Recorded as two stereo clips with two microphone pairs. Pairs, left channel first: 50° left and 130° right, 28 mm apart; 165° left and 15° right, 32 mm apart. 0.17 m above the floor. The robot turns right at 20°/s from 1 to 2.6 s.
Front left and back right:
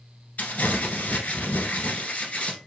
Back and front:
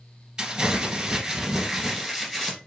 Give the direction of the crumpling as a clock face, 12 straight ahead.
10 o'clock.